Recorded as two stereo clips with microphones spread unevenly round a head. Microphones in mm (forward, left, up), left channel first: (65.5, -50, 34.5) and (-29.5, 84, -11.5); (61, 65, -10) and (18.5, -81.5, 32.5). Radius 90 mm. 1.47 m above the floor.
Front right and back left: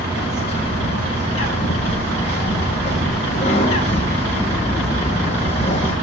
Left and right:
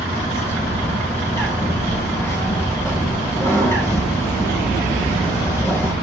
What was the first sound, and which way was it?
A bird, straight ahead.